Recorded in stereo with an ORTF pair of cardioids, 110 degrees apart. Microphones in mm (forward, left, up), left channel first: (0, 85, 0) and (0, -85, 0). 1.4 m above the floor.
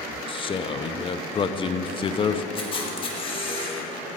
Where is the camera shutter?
30° left, 1.7 m.